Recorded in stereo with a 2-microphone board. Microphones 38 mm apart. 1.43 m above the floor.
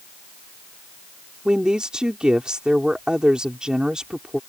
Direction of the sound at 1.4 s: 25° right (ahead or behind).